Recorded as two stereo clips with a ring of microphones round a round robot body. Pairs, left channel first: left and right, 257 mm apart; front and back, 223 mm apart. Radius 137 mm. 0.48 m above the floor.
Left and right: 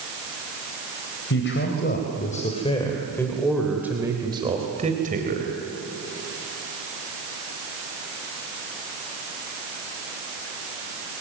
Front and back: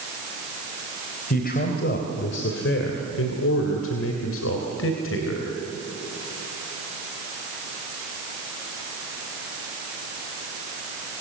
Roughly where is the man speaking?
Ahead left.